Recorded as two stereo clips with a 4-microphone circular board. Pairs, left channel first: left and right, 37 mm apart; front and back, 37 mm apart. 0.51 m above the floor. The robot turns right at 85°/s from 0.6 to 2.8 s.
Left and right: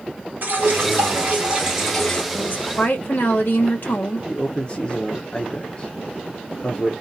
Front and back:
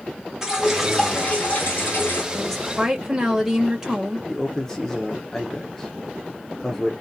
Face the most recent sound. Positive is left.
turn(degrees=65)